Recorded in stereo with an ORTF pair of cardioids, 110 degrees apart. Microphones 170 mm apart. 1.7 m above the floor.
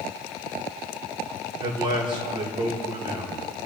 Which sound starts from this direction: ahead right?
A man speaking, at 1.6 s.